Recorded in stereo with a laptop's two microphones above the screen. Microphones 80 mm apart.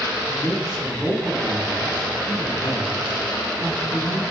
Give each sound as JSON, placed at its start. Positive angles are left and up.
{"t": 0.3, "sound": "a man speaking", "side_deg": 5, "distance_m": 4.5}